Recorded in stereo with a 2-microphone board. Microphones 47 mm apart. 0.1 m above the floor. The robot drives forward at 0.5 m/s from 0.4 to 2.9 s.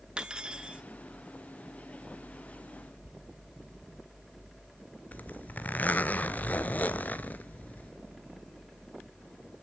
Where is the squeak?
80° left, 0.8 m.